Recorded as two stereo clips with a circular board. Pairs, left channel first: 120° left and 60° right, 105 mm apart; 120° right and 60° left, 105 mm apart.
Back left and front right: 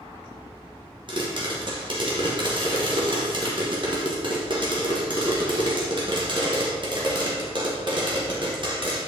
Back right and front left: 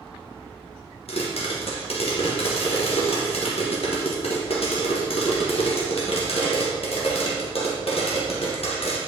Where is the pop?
100° right, 1.7 m.